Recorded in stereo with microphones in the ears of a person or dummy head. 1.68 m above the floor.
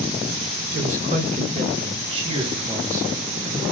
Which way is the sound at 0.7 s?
45° right (ahead or behind).